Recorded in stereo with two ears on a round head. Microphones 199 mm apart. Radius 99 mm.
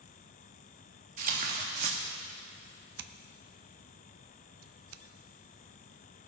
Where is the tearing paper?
40° right (ahead or behind), 1.5 m.